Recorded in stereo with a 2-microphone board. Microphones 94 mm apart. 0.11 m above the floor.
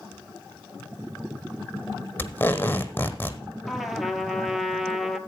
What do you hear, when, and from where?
2.2 s tape being pulled: 20° left (ahead or behind), 1.1 m
3.7 s a trumpet: centre (ahead or behind), 1.0 m